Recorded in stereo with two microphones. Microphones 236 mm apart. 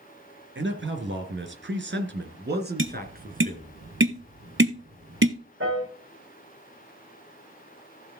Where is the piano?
55° right (ahead or behind), 8.5 m.